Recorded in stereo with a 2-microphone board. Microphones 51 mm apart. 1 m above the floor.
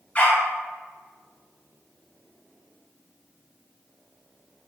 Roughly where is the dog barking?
Left.